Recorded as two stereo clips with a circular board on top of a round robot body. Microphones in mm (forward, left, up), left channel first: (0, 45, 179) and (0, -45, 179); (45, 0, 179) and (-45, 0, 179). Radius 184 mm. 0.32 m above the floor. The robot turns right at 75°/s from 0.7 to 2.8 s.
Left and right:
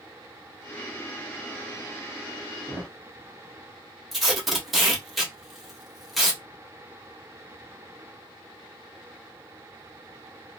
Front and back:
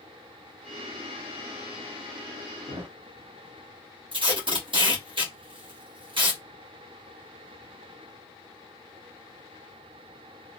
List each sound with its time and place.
2.7 s a thud: 160° left, 1.2 m; by 3.0 s 170° left, 1.2 m
4.1 s tape being pulled: straight behind, 1.6 m